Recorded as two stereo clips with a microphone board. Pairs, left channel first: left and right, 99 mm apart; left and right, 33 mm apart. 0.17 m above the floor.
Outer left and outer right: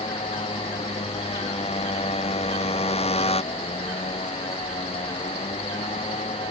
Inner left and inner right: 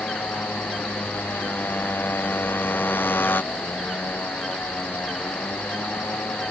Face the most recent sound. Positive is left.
turn(degrees=75)  # may be behind; listen again after turning